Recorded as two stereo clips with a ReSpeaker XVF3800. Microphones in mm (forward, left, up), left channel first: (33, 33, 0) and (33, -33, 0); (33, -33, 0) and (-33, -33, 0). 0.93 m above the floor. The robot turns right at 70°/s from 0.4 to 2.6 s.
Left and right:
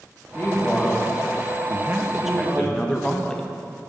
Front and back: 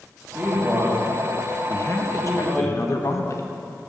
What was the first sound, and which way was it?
A man speaking, 130° left.